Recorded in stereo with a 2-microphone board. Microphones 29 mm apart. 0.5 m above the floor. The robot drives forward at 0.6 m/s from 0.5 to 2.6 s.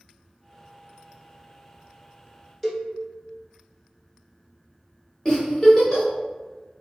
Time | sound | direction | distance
2.6 | a cowbell | 5° left (ahead or behind) | 0.6 m
5.2 | a giggle | 25° left (ahead or behind) | 1.1 m